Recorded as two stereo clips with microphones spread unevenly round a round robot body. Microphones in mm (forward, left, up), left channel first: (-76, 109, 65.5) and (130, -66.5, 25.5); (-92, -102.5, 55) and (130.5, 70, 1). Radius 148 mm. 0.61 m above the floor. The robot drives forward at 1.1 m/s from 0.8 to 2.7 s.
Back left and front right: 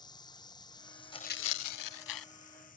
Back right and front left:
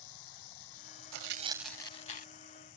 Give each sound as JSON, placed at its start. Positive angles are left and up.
{"t": 0.0, "sound": "running water", "azimuth_deg": -145}
{"t": 1.1, "sound": "tearing paper", "azimuth_deg": 70}